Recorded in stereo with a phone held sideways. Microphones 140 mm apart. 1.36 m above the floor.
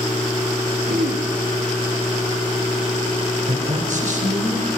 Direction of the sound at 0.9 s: 85° right.